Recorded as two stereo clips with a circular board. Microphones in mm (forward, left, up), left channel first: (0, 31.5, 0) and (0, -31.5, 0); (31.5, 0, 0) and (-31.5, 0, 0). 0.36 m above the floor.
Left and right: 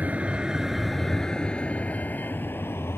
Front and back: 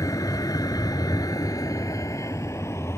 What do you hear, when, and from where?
0.0 s a vehicle: 25° right; by 3.0 s 40° left